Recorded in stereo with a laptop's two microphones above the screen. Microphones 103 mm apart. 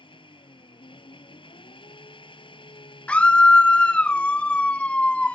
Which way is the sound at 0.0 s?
50° left (ahead or behind).